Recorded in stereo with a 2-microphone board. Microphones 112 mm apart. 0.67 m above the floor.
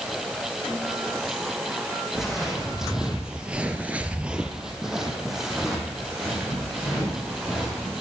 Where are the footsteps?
5° right (ahead or behind), 2.5 m; by 7.9 s centre (ahead or behind), 6 m.